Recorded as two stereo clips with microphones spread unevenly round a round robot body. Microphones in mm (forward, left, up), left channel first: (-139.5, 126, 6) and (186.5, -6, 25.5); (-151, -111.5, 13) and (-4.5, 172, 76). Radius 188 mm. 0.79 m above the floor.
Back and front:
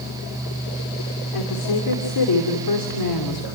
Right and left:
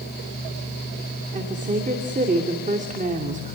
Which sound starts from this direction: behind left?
A woman speaking, at 1.3 s.